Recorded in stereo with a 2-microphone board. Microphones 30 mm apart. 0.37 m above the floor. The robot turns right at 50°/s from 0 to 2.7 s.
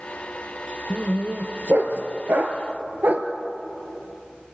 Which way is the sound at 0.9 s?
25° right (ahead or behind).